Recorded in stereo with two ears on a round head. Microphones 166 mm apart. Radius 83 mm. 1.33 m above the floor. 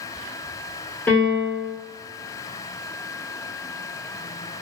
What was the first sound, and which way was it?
A piano, 10° left (ahead or behind).